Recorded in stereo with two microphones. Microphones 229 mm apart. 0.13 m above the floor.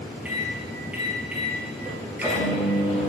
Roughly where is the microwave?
Centre.